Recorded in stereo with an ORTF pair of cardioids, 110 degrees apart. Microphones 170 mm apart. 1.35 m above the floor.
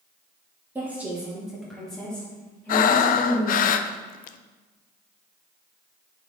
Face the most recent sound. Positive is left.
turn(degrees=55)